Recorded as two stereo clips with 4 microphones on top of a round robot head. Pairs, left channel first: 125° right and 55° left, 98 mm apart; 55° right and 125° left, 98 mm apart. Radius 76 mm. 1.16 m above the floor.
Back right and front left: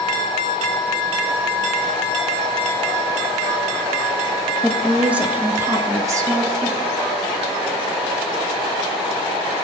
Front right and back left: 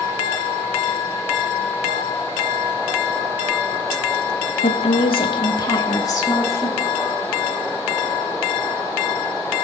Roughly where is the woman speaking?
Ahead right.